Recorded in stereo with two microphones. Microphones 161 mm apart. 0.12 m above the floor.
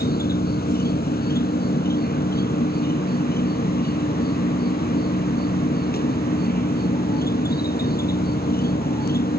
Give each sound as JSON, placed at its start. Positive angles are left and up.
{"t": 0.0, "sound": "an insect", "side_deg": 65}